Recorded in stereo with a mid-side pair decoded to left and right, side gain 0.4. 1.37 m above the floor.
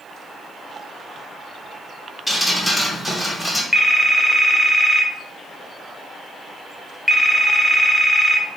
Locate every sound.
2.3 s dripping: 15° left, 1.6 m
3.7 s a phone ringing: 10° left, 0.7 m